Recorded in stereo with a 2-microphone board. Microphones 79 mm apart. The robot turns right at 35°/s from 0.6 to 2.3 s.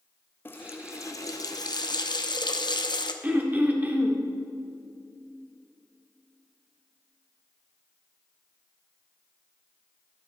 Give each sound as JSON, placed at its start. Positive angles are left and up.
{"t": 0.5, "sound": "a running tap", "azimuth_deg": 30, "distance_m": 0.6}
{"t": 3.2, "sound": "throat clearing", "side_deg": -20, "distance_m": 0.9}